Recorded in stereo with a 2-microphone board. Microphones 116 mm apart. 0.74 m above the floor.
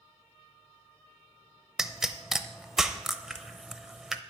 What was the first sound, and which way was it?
A pop, 5° right (ahead or behind).